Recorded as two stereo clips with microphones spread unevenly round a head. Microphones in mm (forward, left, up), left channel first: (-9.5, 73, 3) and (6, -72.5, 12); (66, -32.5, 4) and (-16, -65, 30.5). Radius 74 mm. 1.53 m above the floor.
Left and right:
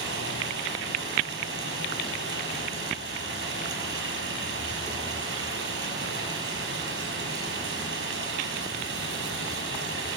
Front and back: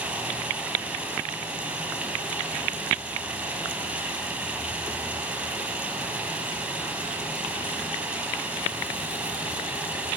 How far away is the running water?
About 5.5 m.